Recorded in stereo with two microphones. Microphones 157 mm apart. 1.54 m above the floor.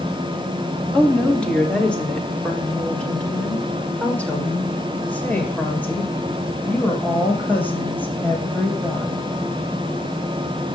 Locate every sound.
0.9 s a woman speaking: 5° left (ahead or behind), 3 m; by 9.2 s 10° left (ahead or behind), 8.5 m